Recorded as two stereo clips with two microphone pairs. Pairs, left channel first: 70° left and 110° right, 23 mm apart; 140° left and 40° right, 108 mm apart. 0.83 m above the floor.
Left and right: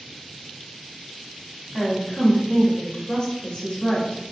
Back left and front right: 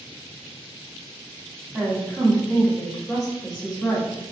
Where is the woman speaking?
85° right, 1.1 m; by 4.2 s 65° left, 1.2 m.